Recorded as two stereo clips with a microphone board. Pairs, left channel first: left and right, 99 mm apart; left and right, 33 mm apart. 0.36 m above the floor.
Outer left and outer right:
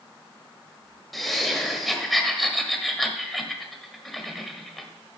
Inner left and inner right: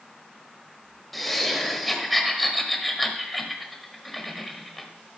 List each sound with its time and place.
1.1 s laughter: centre (ahead or behind), 1.4 m